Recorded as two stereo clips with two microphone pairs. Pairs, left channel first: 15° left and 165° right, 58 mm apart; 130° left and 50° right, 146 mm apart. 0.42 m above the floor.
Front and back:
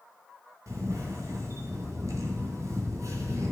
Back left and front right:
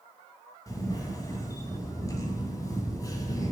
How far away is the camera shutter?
About 1.8 m.